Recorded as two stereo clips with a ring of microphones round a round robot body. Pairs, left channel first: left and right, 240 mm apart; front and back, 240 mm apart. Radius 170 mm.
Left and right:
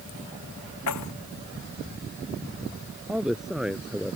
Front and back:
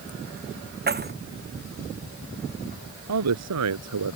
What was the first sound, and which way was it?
Keys jangling, 130° left.